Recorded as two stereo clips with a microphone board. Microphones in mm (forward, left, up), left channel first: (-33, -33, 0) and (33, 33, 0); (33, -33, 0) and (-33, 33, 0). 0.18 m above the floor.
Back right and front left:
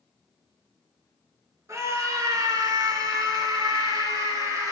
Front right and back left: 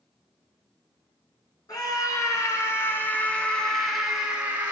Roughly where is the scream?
Ahead.